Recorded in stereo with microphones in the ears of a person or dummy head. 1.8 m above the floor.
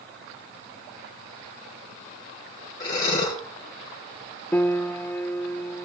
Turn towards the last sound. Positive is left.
turn(degrees=10)  # may be behind; listen again after turning